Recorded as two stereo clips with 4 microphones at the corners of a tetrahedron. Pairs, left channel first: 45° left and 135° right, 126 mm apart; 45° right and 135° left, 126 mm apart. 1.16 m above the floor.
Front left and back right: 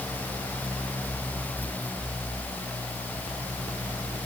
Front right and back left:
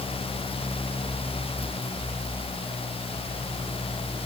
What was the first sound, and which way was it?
Only background noise.